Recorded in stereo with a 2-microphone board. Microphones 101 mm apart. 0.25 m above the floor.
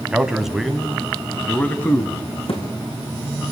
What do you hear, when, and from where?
0.1 s a man speaking: 10° right (ahead or behind), 1.7 m; by 2.2 s 25° left (ahead or behind), 2 m
2.5 s a thud: 70° left (ahead or behind), 5.5 m